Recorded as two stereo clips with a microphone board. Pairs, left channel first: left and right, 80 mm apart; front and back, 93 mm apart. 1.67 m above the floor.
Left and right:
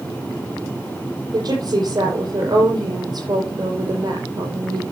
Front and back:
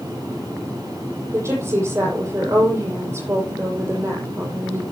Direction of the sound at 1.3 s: 120° right.